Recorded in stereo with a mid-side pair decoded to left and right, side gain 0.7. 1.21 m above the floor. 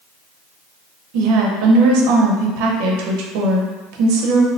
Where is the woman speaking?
70° right, 0.8 m.